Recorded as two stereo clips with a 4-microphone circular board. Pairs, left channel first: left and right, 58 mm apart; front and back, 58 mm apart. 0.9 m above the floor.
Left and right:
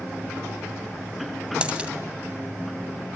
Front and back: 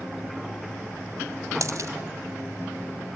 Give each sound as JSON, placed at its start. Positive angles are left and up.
{"t": 1.6, "sound": "a dropped coin", "azimuth_deg": -160, "distance_m": 1.8}